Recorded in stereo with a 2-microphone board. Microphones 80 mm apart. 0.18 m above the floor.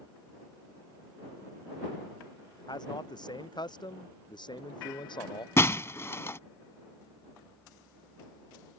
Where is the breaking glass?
35° left (ahead or behind).